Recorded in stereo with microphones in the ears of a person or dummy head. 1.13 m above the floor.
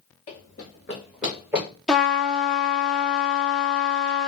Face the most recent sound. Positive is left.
turn(degrees=0)  # may be behind; listen again after turning